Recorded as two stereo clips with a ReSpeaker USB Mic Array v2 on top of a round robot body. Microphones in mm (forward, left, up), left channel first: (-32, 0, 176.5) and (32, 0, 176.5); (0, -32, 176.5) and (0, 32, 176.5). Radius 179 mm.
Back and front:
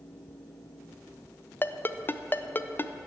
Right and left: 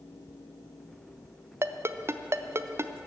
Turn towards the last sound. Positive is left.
turn(degrees=130)